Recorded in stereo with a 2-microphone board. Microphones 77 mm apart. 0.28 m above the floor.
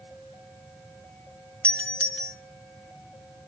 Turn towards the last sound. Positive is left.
turn(degrees=15)  # may be behind; listen again after turning